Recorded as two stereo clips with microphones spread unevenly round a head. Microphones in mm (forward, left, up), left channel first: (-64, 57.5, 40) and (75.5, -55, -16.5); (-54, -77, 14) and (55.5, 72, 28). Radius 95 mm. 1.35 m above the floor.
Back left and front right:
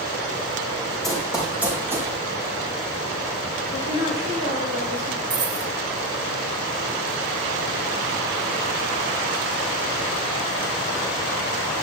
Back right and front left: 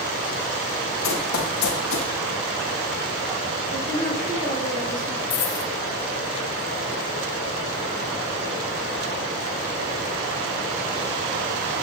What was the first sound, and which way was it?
Running footsteps, 140° right.